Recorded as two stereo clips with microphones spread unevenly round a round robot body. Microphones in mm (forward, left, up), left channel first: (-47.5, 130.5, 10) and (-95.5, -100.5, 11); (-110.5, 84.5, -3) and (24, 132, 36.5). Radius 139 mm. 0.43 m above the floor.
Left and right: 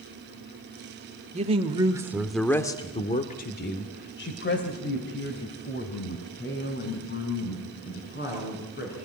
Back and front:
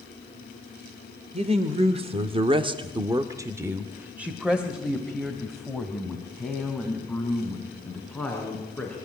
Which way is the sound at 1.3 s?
45° right.